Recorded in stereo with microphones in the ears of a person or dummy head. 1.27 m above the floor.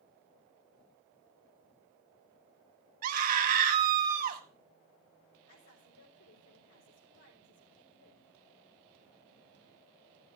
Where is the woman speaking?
70° left (ahead or behind), 4 m.